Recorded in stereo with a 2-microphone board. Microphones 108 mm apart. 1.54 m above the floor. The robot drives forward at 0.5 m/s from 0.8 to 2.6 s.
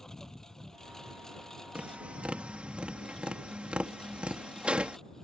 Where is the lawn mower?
5° left (ahead or behind).